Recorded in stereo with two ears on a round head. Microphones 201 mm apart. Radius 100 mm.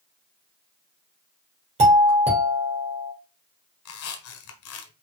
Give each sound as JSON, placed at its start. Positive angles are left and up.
{"t": 1.8, "sound": "a doorbell", "side_deg": -30, "distance_m": 2.5}
{"t": 3.9, "sound": "a squeak", "side_deg": 70, "distance_m": 1.2}